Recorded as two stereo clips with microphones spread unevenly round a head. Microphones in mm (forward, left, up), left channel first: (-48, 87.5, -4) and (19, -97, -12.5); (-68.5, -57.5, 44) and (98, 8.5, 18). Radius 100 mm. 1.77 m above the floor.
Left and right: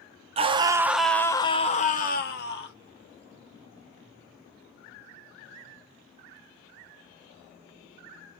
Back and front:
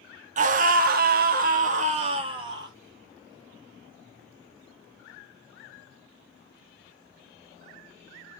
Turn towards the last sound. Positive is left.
turn(degrees=95)